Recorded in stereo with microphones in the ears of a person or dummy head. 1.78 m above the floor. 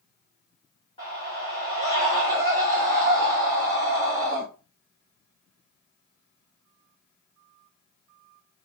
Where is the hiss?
No hiss in this recording.